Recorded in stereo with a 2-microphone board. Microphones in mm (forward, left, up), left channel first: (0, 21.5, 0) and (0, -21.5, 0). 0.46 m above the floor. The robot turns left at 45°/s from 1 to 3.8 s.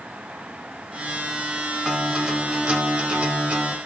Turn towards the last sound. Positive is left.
turn(degrees=-110)